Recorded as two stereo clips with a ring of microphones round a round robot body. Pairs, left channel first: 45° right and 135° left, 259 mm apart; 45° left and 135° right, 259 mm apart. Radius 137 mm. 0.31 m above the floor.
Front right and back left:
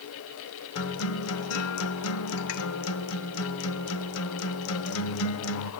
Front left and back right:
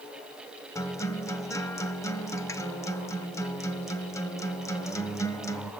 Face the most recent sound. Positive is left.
turn(degrees=-30)